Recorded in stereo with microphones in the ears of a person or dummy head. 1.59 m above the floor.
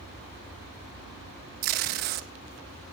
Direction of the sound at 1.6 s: 45° right (ahead or behind).